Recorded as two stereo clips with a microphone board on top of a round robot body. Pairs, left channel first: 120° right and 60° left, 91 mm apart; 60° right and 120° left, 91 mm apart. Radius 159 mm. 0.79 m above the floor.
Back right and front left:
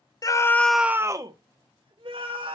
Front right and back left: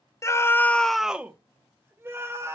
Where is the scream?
100° right, 0.9 m; by 2.5 s 60° left, 2 m.